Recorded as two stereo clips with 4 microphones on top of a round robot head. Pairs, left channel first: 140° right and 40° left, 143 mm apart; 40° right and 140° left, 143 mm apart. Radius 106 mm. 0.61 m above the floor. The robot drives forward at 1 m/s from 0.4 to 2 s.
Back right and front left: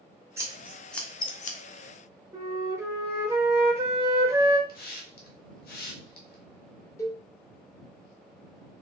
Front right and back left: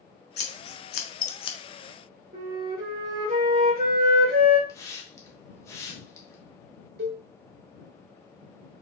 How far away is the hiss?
About 0.9 m.